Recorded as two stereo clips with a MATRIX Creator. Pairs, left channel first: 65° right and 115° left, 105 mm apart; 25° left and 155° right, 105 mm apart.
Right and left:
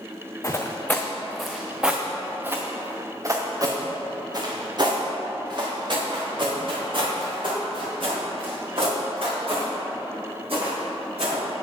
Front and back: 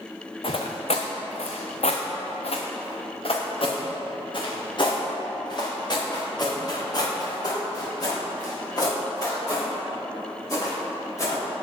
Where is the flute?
I don't hear a flute.